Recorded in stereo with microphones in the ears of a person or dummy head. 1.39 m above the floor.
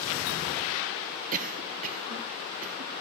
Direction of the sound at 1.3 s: 45° right (ahead or behind).